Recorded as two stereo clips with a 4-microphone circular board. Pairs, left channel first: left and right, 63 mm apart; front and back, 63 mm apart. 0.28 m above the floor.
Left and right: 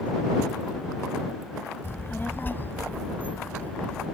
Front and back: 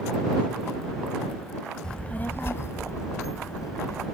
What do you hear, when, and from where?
1.8 s a child speaking: 70° left; by 4.1 s 20° left